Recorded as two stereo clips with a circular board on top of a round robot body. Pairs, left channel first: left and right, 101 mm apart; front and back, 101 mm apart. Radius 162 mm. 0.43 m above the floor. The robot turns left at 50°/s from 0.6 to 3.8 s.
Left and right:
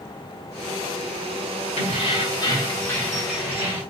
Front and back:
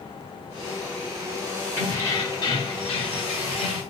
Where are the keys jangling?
75° left, 1.9 m; by 3.8 s 30° right, 1.9 m.